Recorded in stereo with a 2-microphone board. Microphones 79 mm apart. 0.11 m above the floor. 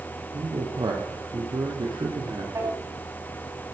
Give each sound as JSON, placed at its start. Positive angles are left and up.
{"t": 0.3, "sound": "a man speaking", "side_deg": -60, "distance_m": 3.0}
{"t": 2.5, "sound": "a drawer", "side_deg": -40, "distance_m": 9.5}